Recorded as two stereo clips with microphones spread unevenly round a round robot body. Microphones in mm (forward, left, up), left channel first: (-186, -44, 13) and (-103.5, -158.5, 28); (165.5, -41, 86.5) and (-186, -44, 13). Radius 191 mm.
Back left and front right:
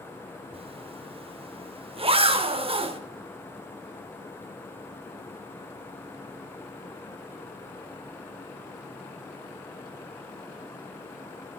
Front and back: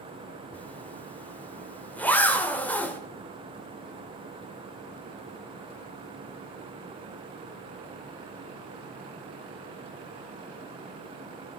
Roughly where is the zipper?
Right.